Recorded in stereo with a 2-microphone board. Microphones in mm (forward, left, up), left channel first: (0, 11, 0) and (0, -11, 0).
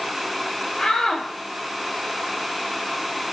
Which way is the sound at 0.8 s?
45° left (ahead or behind).